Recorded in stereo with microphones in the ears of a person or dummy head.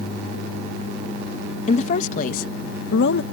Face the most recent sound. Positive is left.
turn(degrees=70)  # may be behind; listen again after turning